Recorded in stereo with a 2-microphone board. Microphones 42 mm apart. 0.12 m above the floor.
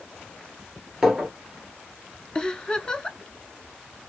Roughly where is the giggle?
Centre.